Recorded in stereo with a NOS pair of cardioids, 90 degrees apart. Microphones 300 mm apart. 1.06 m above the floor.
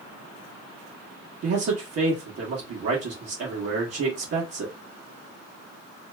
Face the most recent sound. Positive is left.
turn(degrees=-55)